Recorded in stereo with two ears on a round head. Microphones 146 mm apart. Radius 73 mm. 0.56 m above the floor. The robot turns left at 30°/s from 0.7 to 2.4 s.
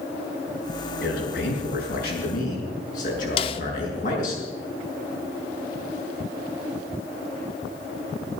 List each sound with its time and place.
1.0 s a man speaking: 100° left, 7.5 m; by 4.4 s 55° left, 7.5 m
3.4 s a snare drum: 35° left (ahead or behind), 0.7 m